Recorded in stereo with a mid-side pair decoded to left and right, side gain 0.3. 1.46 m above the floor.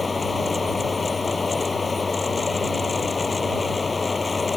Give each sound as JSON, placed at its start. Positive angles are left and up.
{"t": 0.0, "sound": "a fan", "azimuth_deg": 45}